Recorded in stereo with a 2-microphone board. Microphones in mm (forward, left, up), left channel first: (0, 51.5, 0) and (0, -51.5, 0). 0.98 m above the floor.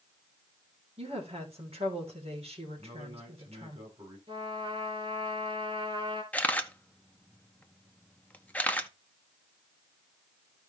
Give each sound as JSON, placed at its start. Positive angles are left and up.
{"t": 1.0, "sound": "a woman speaking", "side_deg": -80, "distance_m": 3.5}
{"t": 2.8, "sound": "a man speaking", "side_deg": -60, "distance_m": 7.5}
{"t": 4.3, "sound": "a trumpet", "side_deg": -60, "distance_m": 3.0}
{"t": 6.3, "sound": "a camera shutter", "side_deg": 15, "distance_m": 0.8}